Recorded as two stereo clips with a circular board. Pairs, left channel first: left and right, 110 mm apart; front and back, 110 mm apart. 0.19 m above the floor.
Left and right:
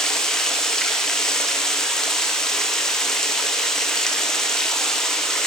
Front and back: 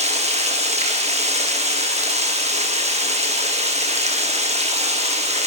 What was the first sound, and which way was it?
Running water, 175° left.